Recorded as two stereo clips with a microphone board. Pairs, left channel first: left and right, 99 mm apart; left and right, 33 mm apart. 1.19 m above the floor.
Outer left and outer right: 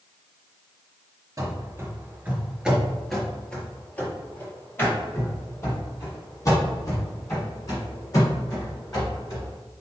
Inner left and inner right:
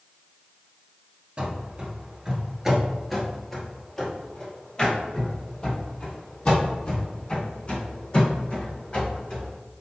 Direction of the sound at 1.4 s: 35° right (ahead or behind).